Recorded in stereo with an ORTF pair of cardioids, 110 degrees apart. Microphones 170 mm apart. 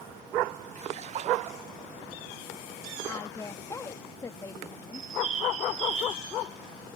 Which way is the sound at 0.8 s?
45° right.